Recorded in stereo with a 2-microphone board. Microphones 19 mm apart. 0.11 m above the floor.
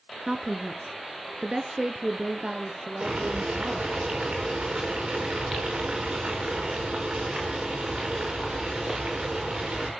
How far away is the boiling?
About 6.5 m.